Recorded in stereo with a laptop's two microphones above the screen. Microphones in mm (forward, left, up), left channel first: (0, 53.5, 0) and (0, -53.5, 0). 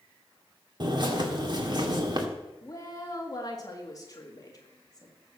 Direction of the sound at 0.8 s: 45° right (ahead or behind).